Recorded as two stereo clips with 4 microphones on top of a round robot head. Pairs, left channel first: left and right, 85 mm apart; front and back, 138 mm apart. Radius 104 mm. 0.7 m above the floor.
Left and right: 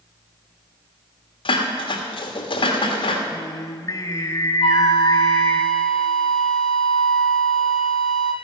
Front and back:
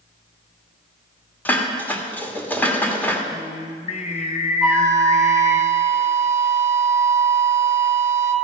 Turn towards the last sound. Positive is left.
turn(degrees=95)